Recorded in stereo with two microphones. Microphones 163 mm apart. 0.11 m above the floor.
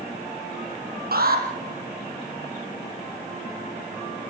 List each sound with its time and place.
1.1 s an alarm: 70° right (ahead or behind), 4 m